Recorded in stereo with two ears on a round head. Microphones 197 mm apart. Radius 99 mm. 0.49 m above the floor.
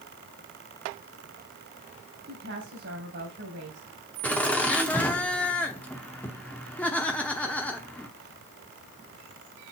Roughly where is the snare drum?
No snare drum in this recording.